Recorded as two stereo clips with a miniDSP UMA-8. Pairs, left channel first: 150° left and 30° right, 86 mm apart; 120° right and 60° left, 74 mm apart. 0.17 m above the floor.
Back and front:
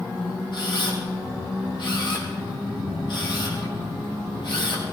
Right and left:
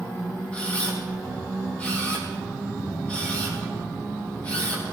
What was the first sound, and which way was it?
A camera shutter, 170° left.